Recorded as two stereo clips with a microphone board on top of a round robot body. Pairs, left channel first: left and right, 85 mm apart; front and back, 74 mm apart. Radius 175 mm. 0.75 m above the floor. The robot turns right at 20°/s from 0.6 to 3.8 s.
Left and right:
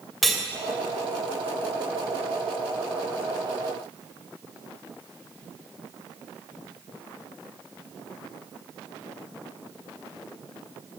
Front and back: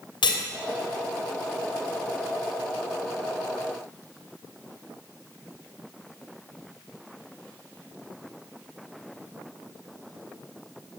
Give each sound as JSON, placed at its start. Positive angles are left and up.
{"t": 0.2, "sound": "cutlery clinking", "azimuth_deg": 0, "distance_m": 2.5}